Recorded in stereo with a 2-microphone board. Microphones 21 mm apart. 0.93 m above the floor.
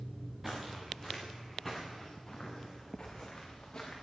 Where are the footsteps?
15° right (ahead or behind), 4.5 m; by 4.0 s 30° left (ahead or behind), 5 m.